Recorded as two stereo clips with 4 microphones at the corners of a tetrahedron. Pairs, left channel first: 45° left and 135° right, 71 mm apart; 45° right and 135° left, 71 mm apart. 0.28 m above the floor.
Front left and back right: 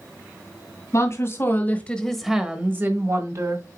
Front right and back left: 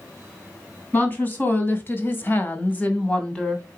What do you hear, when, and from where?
0.9 s a woman speaking: 15° left, 2.5 m; by 3.6 s 125° right, 2.5 m